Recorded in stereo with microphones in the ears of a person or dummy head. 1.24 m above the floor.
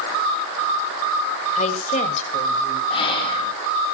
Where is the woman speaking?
40° left (ahead or behind), 5 m; by 2.8 s 35° left (ahead or behind), 6 m.